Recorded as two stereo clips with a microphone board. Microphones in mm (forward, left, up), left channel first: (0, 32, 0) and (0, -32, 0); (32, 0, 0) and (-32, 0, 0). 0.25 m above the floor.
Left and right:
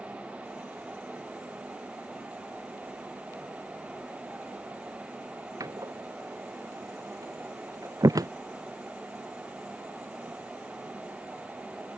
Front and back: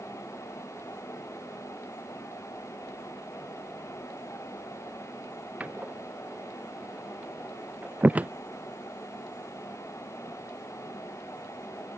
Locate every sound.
5.6 s a door slam: 115° right